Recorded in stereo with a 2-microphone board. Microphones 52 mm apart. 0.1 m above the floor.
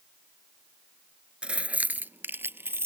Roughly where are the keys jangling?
Right.